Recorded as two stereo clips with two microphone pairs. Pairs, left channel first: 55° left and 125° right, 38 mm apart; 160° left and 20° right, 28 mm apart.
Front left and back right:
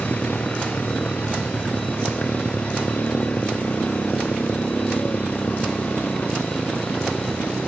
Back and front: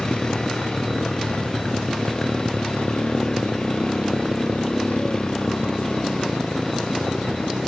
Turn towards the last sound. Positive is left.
turn(degrees=100)